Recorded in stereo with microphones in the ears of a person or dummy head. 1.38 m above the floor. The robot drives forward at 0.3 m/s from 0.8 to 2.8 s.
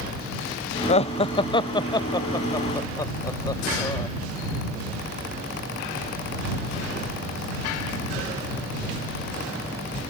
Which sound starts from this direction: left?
Laughter, at 0.9 s.